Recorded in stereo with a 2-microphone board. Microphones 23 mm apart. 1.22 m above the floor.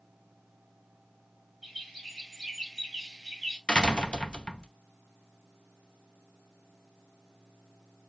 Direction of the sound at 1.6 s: Centre (ahead or behind).